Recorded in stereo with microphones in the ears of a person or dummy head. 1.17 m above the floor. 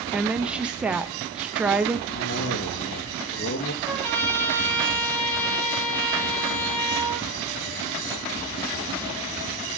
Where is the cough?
55° left (ahead or behind), 1.7 m.